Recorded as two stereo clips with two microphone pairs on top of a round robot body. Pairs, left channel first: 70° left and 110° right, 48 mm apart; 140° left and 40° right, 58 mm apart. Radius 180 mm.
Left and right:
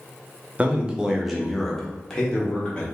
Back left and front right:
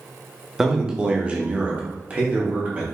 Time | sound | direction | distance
0.6 | a man speaking | 90° right | 1.1 m